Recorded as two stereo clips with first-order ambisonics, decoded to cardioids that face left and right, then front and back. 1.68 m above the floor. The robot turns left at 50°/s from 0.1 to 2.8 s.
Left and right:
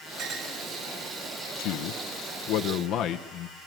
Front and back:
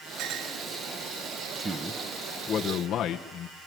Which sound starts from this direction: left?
A man speaking, at 1.6 s.